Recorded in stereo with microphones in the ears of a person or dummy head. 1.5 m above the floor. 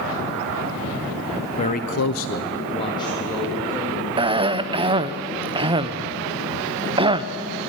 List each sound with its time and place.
1.6 s a man speaking: 30° left (ahead or behind), 1.0 m; by 4.1 s 10° left (ahead or behind), 3 m
4.2 s a cough: 25° right (ahead or behind), 0.5 m